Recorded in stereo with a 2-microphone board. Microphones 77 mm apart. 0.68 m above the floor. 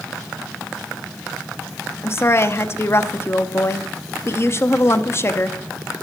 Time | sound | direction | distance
2.0 | a woman speaking | 35° left (ahead or behind) | 0.6 m